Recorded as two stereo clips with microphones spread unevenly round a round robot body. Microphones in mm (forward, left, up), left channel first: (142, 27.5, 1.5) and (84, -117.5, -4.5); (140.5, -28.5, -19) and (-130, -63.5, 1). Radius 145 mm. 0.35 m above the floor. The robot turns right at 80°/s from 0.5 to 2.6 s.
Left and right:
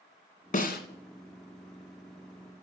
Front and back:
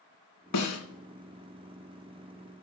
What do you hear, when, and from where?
0.5 s a snare drum: 30° left, 1.8 m; by 0.8 s 55° left, 1.8 m